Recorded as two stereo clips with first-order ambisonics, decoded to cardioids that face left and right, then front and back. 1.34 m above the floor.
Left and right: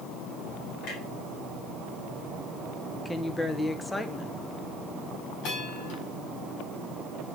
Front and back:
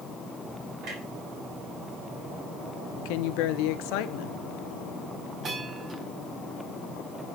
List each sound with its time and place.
0.8 s a clunk: 135° left, 3.5 m
3.0 s a woman speaking: 10° left, 0.7 m
5.4 s a bell: 120° left, 4 m